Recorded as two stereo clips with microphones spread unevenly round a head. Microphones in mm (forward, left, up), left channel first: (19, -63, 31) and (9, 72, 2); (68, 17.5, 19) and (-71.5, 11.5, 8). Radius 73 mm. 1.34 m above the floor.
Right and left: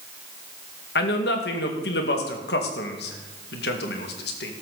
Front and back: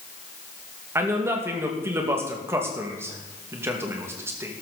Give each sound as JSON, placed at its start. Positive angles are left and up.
{"t": 0.9, "sound": "a man speaking", "azimuth_deg": -105, "distance_m": 2.0}